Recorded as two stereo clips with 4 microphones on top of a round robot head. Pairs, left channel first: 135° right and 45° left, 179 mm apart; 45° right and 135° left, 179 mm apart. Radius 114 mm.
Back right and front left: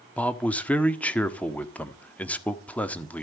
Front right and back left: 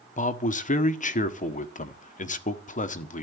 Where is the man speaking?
55° right, 1.5 m.